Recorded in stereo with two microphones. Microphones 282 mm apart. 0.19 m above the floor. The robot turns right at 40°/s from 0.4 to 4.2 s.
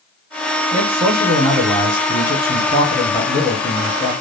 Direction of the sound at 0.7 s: 15° right (ahead or behind).